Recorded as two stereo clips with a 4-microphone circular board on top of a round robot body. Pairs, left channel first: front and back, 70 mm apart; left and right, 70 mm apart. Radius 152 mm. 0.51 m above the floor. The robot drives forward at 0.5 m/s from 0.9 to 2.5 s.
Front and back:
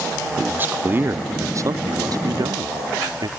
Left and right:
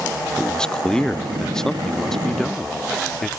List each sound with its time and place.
0.4 s a man speaking: 155° left; by 3.3 s 175° left